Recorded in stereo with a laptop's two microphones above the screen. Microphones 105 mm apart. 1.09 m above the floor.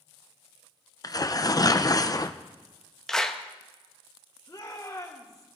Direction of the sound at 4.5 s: 35° left (ahead or behind).